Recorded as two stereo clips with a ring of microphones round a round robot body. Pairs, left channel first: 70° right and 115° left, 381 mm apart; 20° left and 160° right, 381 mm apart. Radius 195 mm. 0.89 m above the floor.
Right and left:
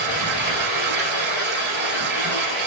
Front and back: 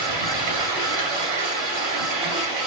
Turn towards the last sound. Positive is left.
turn(degrees=180)